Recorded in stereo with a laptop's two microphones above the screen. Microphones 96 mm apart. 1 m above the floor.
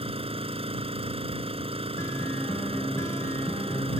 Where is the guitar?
30° left (ahead or behind).